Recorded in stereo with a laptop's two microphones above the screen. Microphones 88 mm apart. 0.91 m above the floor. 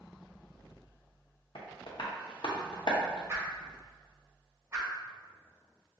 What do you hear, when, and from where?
1.6 s tapping: 65° left (ahead or behind), 0.7 m
3.3 s a whoosh: 30° right (ahead or behind), 1.1 m